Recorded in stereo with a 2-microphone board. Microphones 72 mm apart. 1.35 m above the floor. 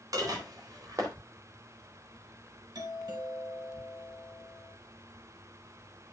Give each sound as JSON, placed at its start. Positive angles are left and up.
{"t": 0.1, "sound": "dishes clattering", "side_deg": -55, "distance_m": 4.0}
{"t": 2.8, "sound": "a doorbell", "side_deg": -65, "distance_m": 3.5}